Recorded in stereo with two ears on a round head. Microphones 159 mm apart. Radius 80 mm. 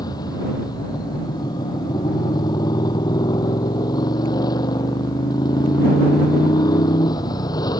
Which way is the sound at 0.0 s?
25° left (ahead or behind).